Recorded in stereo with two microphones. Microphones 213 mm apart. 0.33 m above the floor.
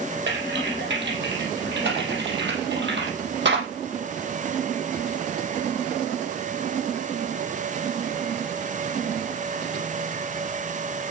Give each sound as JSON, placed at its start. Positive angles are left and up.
{"t": 0.3, "sound": "typing on a keyboard", "side_deg": -55, "distance_m": 5.0}